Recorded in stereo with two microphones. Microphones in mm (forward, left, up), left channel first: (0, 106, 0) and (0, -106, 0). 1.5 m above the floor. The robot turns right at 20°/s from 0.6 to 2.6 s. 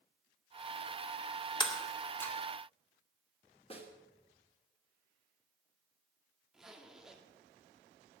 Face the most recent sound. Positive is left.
turn(degrees=0)  # may be behind; listen again after turning